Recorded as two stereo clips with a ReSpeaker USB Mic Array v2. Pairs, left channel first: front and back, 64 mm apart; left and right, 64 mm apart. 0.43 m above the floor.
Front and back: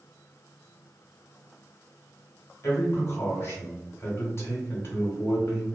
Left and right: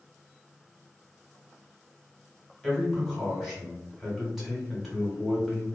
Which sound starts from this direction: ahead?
A man speaking, at 2.6 s.